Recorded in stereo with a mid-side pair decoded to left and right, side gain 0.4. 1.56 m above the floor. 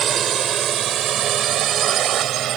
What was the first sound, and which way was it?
A drone, 60° right.